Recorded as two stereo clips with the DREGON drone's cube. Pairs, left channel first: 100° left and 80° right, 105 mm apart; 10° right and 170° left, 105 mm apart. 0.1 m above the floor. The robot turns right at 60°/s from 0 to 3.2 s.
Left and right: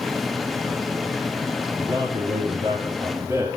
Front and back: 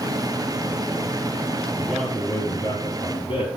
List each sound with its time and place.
1.8 s a man speaking: 110° right, 3.5 m; by 3.5 s 25° right, 3.5 m